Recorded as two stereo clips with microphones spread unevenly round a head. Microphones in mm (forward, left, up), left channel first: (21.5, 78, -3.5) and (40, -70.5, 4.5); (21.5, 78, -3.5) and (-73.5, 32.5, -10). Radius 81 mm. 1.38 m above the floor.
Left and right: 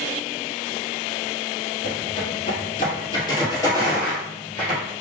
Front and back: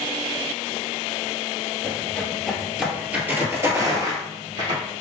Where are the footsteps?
90° left, 1.7 m; by 4.8 s 175° right, 1.9 m.